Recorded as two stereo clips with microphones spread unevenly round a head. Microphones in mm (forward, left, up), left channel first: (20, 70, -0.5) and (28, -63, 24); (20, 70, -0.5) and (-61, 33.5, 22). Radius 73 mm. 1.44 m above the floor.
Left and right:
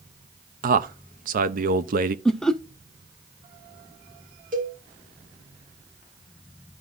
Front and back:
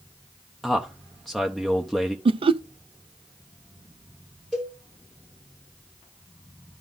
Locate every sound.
0.6 s a man speaking: 60° right, 0.6 m
2.2 s laughter: straight behind, 0.5 m
4.5 s a cowbell: 60° right, 2.5 m